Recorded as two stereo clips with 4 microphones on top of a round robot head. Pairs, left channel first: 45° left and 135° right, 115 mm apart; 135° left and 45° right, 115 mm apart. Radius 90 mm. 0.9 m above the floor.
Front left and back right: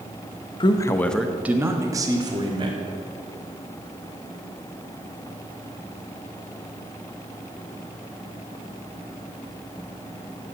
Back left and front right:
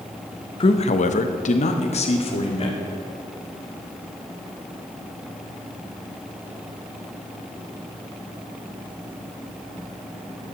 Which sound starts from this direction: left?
A man speaking, at 0.6 s.